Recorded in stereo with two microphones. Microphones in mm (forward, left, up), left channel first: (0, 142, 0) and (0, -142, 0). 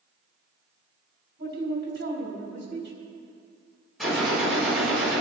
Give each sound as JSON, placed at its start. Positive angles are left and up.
{"t": 1.4, "sound": "a man speaking", "side_deg": -45, "distance_m": 4.0}
{"t": 4.0, "sound": "a gunshot", "side_deg": 0, "distance_m": 4.0}